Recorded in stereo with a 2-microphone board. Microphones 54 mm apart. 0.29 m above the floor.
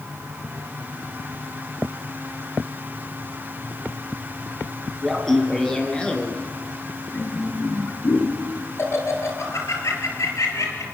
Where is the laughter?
5° left (ahead or behind), 4 m; by 10.8 s 65° left (ahead or behind), 5.5 m.